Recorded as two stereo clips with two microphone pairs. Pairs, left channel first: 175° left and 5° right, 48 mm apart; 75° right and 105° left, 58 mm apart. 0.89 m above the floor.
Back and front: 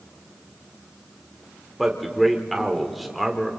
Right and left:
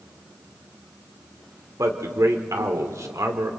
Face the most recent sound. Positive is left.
turn(degrees=85)